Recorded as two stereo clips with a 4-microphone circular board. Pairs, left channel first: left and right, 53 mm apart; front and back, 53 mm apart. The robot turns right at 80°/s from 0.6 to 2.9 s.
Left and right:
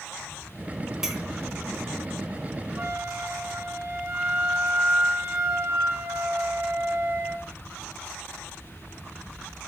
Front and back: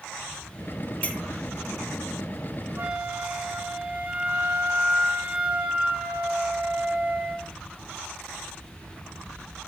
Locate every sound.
1.0 s a clink: 20° right, 0.9 m; by 1.2 s 5° right, 0.9 m
2.8 s a flute: 140° right, 2.5 m; by 7.5 s 125° right, 2.5 m